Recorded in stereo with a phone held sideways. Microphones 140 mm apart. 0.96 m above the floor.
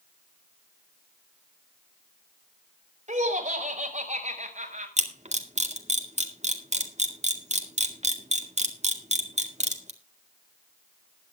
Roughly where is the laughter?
Right.